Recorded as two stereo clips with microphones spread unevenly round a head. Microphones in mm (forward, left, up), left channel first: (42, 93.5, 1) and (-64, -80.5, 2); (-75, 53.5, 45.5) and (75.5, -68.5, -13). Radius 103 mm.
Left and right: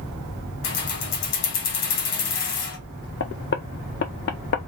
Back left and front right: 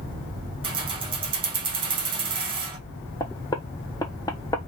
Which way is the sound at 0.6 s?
35° left.